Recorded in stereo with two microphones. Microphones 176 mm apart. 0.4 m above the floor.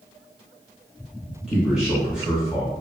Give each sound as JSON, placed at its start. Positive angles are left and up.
{"t": 1.5, "sound": "a man speaking", "side_deg": -5, "distance_m": 0.9}